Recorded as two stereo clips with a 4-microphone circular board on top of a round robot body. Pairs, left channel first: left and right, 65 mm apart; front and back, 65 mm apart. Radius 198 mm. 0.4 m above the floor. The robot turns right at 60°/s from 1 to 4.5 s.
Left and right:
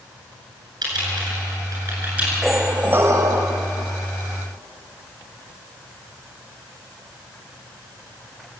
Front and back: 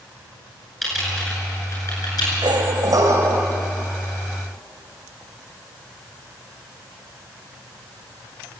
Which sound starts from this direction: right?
Typing on a keyboard, at 0.8 s.